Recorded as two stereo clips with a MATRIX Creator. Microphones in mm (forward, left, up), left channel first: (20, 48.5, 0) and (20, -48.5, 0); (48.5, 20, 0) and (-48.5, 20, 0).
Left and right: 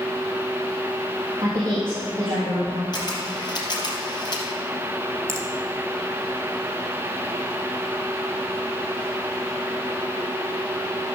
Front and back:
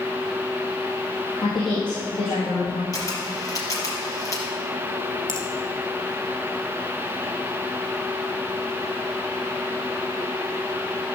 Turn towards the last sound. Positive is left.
turn(degrees=-30)